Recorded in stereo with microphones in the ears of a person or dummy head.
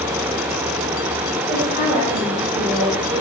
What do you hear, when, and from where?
1.5 s a woman speaking: 30° right (ahead or behind), 6.5 m; by 3.2 s 20° right (ahead or behind), 7 m